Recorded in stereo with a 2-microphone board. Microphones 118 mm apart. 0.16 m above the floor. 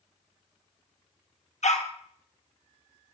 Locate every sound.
1.6 s a dog barking: 75° left (ahead or behind), 1.6 m